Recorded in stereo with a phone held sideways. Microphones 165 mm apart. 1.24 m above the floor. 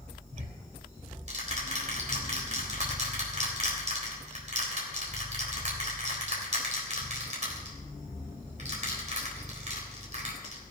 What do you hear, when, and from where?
0.3 s ticking: 50° right (ahead or behind), 3.5 m